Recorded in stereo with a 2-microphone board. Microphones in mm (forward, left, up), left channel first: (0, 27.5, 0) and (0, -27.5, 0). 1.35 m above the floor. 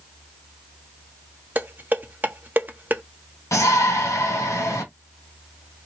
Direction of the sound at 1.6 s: 35° right (ahead or behind).